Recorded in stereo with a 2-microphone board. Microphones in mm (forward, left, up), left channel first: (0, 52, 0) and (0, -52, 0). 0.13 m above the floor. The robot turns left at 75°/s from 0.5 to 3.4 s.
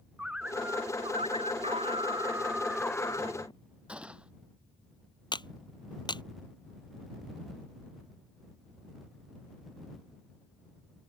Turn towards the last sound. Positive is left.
turn(degrees=45)  # may be behind; listen again after turning